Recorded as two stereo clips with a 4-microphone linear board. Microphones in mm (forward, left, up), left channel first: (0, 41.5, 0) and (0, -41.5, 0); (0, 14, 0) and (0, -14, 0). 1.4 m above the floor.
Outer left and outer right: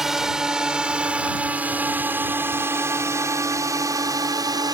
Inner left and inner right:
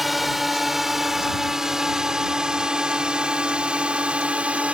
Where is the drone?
5° right (ahead or behind); by 4.8 s 55° right (ahead or behind).